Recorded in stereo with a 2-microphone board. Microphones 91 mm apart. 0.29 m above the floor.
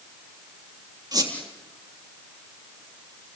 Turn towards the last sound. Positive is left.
turn(degrees=-45)  # may be behind; listen again after turning